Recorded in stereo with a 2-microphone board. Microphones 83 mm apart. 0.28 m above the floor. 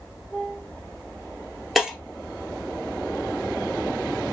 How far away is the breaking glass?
About 2.5 m.